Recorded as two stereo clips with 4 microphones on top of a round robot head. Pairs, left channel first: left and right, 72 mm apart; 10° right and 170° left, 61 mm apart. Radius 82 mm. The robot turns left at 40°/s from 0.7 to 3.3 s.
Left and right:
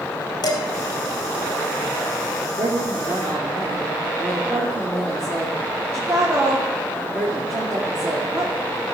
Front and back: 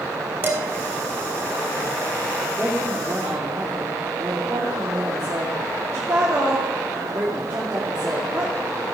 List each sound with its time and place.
0.4 s dishes clattering: 110° left, 3 m
2.6 s a woman speaking: 110° right, 2.5 m; by 8.5 s 135° right, 2.5 m